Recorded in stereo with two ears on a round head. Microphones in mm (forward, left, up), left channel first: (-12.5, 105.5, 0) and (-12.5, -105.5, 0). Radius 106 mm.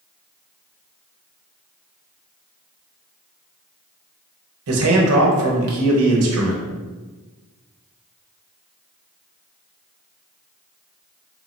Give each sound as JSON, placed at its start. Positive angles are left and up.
{"t": 4.7, "sound": "a man speaking", "side_deg": -70, "distance_m": 0.9}